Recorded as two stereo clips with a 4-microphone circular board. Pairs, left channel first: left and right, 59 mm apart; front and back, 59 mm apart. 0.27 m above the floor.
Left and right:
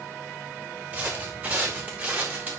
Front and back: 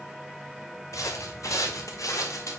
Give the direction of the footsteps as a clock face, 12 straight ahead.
1 o'clock.